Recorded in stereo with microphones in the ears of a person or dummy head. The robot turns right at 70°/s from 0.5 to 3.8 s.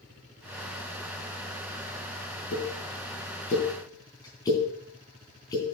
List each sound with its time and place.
2.5 s a pop: 60° left (ahead or behind), 3.5 m; by 5.8 s 20° left (ahead or behind), 3.5 m